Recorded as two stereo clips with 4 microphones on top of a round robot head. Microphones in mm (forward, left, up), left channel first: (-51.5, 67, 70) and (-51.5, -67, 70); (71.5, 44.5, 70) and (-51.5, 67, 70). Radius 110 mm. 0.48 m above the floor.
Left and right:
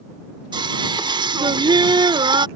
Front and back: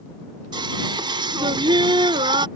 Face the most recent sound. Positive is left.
turn(degrees=-140)